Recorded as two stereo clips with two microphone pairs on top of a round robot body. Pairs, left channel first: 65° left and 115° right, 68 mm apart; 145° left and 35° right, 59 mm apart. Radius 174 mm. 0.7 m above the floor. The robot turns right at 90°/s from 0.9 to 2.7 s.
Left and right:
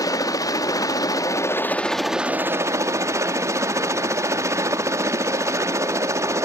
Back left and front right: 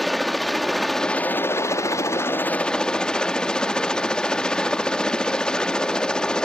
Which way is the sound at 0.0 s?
55° left.